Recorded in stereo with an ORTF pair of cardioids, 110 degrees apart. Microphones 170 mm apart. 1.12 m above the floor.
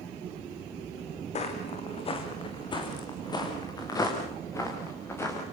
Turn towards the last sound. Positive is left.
turn(degrees=15)